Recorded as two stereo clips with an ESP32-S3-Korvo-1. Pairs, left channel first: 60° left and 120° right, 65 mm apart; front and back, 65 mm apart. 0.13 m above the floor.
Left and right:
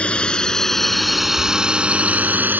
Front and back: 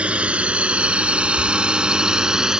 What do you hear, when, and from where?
0.0 s a drone: 120° left; by 2.6 s 110° right